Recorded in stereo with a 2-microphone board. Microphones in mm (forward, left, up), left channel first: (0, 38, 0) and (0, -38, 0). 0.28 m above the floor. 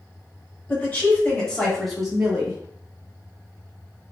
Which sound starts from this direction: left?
A woman speaking, at 0.7 s.